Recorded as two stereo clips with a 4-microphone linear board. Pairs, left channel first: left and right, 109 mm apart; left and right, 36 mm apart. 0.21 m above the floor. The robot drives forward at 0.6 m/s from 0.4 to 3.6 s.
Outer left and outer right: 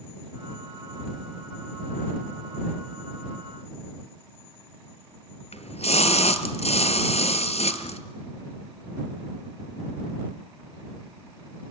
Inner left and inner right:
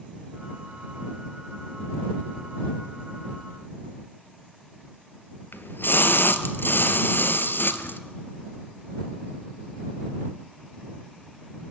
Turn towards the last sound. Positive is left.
turn(degrees=75)  # may be behind; listen again after turning